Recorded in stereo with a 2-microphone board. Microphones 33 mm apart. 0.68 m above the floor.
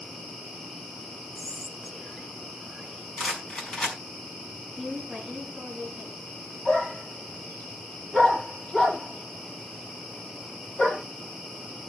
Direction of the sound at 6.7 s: 35° left (ahead or behind).